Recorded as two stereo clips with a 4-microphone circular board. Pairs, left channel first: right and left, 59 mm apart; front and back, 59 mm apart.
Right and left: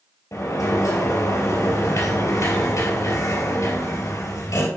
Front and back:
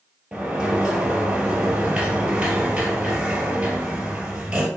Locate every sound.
0.3 s a sliding door: 105° right, 2.5 m